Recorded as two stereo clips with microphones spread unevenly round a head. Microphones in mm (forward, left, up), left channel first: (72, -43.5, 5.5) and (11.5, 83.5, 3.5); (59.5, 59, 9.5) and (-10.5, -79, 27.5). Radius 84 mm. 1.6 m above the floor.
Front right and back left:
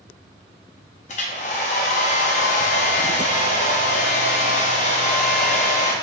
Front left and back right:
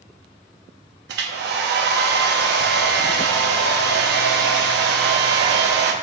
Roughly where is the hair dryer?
Behind right.